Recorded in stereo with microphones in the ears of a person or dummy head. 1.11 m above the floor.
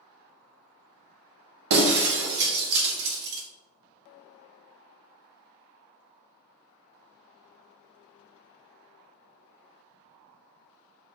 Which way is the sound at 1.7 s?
55° right (ahead or behind).